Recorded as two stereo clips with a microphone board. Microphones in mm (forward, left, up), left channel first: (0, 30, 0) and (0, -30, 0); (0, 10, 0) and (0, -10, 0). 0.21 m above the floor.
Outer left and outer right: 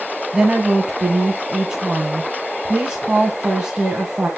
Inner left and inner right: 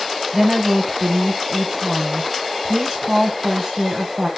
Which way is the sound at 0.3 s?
15° right (ahead or behind).